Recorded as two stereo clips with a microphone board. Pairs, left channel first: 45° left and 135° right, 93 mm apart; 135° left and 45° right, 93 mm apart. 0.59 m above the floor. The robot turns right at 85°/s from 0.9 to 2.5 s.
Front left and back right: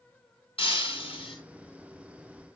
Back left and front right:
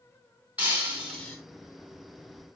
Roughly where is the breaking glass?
Ahead left.